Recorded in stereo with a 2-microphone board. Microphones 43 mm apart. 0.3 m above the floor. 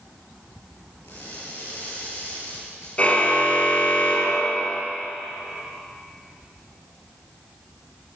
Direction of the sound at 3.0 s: 35° left (ahead or behind).